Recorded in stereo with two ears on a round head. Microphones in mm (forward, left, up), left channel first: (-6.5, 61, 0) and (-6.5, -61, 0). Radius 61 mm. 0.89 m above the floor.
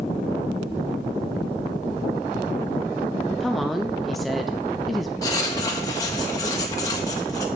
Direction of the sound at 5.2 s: 30° left (ahead or behind).